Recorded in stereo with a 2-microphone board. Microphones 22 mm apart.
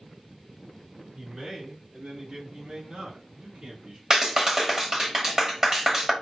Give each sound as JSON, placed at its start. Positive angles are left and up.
{"t": 1.2, "sound": "a man speaking", "side_deg": -30, "distance_m": 3.5}
{"t": 4.1, "sound": "a clap", "side_deg": -30, "distance_m": 1.5}